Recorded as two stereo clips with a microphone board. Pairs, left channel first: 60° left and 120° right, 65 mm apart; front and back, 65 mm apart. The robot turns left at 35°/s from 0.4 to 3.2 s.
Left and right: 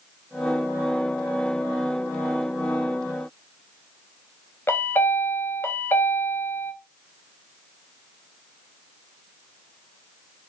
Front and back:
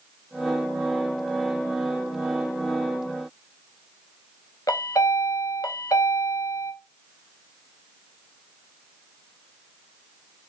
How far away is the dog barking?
No dog barking in this recording.